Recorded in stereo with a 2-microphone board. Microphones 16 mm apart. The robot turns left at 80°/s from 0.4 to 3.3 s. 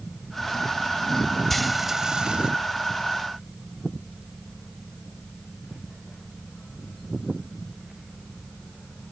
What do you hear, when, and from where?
1.5 s frying: 15° left; by 2.5 s 65° right